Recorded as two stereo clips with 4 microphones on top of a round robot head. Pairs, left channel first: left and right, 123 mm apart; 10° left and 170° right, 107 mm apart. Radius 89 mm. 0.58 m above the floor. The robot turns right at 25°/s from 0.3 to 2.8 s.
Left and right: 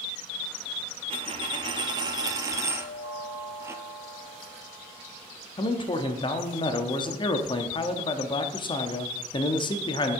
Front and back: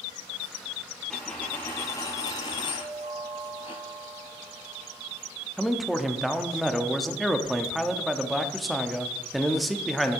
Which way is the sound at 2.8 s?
160° right.